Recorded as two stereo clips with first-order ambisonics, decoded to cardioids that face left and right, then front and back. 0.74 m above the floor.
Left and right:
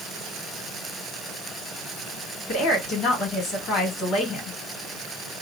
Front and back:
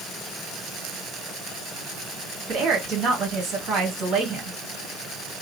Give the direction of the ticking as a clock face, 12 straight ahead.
I don't hear ticking.